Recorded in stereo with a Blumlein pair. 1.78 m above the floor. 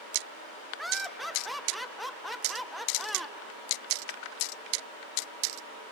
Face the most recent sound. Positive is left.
turn(degrees=0)